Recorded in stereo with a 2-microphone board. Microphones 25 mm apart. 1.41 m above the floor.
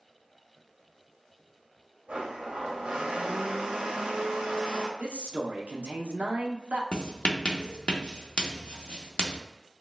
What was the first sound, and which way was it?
A blender, 75° right (ahead or behind).